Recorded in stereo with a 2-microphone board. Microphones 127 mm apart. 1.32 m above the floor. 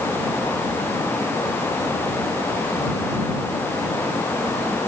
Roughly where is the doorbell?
No doorbell in this recording.